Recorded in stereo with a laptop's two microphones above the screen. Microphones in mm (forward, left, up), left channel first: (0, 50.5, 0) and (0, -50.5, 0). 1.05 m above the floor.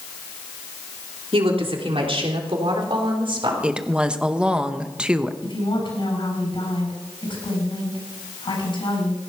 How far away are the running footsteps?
No running footsteps in this recording.